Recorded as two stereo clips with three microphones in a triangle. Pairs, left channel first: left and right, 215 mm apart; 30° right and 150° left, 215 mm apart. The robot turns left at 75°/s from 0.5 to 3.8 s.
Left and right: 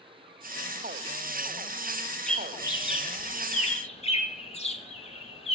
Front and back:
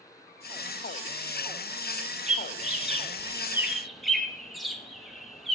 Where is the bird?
175° left, 1.1 m; by 5.6 s 60° left, 1.1 m.